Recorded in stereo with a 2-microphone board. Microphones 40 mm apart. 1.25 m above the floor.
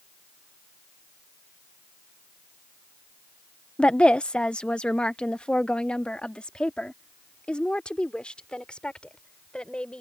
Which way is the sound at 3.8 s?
30° left (ahead or behind).